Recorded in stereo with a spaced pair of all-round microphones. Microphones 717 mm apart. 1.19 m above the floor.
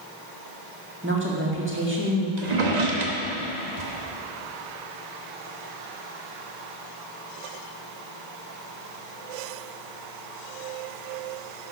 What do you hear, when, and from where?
1.0 s a woman speaking: 15° right (ahead or behind), 1.9 m
2.4 s a drawer: 65° right (ahead or behind), 1.2 m